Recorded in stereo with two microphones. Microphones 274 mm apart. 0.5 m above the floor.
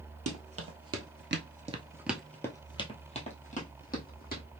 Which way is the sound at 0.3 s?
55° right (ahead or behind).